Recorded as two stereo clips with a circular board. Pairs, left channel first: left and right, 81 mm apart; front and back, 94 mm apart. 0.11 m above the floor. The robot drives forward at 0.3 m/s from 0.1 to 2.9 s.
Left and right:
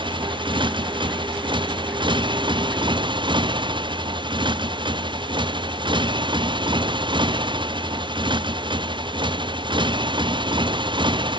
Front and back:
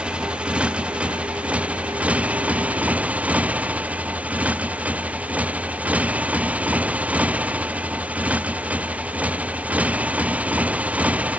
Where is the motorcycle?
100° right; by 11.4 s 105° right.